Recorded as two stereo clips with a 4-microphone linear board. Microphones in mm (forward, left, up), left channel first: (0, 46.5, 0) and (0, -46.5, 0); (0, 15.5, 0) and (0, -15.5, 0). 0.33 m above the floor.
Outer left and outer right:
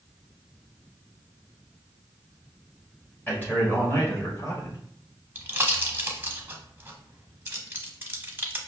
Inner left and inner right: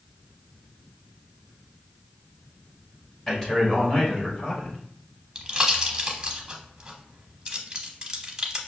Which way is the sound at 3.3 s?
20° left (ahead or behind).